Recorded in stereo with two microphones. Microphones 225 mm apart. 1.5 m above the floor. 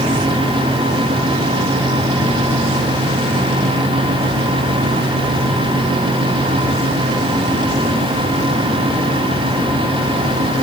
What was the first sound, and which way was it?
Only background noise.